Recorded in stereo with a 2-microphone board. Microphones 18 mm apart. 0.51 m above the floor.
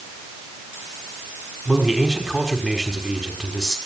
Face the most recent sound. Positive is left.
turn(degrees=-10)  # may be behind; listen again after turning